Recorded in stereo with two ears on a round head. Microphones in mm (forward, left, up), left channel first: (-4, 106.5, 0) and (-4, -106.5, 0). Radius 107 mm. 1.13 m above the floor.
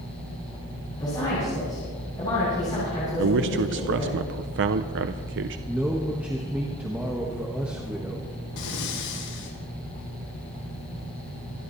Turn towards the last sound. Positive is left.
turn(degrees=85)